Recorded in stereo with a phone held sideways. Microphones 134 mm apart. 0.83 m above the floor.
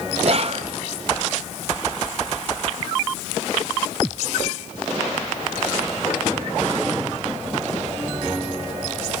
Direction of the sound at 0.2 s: 50° right (ahead or behind).